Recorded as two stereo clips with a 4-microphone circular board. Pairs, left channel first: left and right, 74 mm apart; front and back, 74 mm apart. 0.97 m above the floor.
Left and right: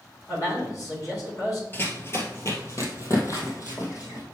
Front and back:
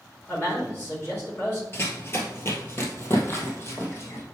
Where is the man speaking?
55° left, 3.5 m.